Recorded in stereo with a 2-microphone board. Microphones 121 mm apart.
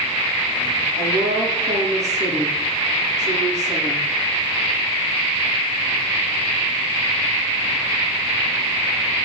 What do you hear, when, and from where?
1.0 s a woman speaking: 70° right (ahead or behind), 6 m